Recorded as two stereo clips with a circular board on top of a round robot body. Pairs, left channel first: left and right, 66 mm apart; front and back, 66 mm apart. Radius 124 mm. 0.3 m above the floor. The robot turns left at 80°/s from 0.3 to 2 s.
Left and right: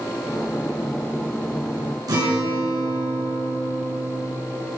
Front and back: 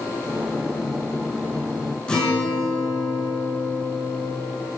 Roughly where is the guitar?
Right.